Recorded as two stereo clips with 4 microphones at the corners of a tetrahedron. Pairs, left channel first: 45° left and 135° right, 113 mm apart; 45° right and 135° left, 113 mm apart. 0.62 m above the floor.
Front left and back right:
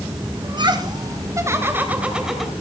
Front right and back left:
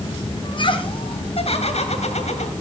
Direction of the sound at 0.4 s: 90° right.